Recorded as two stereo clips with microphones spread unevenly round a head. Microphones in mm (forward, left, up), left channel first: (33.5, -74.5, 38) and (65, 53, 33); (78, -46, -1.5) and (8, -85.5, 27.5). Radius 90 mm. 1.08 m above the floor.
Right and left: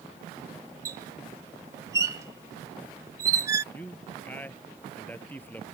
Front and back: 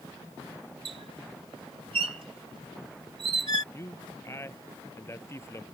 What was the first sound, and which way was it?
A squeak, 150° left.